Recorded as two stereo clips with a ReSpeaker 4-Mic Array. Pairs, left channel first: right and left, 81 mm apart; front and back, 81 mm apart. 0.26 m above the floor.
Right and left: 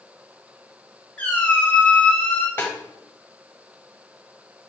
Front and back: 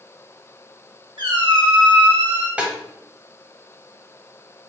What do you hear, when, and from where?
1.2 s a squeak: 160° right, 1.3 m
2.6 s a snare drum: 120° right, 0.6 m